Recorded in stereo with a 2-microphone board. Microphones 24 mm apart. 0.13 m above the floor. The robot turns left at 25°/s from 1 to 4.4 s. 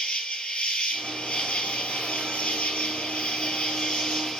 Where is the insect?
130° left, 0.9 m; by 4.4 s 45° left, 0.9 m.